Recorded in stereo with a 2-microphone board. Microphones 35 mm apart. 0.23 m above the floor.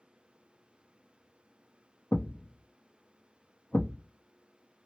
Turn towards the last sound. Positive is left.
turn(degrees=80)